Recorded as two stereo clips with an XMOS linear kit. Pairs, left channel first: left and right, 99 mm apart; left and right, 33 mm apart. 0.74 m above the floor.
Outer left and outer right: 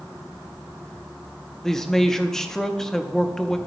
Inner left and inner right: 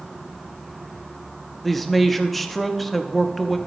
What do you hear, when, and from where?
1.6 s a man speaking: 5° left (ahead or behind), 0.8 m